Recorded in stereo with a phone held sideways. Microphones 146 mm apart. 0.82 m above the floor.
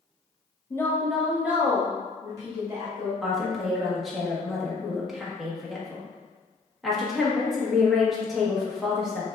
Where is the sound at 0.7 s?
20° left (ahead or behind), 0.9 m; by 3.1 s 30° right (ahead or behind), 2.5 m.